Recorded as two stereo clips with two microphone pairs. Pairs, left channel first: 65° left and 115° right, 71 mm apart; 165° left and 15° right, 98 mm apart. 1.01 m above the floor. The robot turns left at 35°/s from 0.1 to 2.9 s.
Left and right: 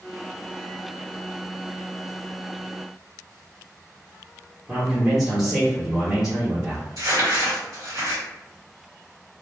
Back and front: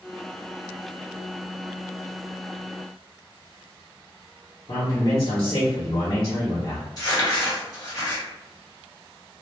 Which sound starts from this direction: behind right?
Crumpling, at 7.0 s.